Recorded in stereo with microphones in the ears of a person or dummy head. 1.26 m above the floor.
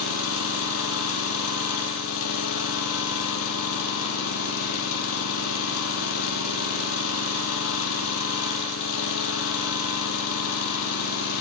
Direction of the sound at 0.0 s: 80° left.